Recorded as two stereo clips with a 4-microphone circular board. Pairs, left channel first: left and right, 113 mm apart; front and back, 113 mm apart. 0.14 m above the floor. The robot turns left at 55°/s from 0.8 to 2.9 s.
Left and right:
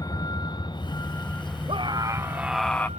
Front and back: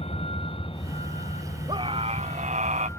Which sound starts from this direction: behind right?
A scream, at 1.7 s.